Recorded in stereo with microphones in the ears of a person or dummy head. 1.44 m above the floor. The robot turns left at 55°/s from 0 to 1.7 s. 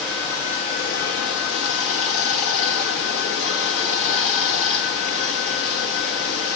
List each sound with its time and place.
0.0 s running water: straight behind, 1.4 m; by 6.6 s 85° left, 1.4 m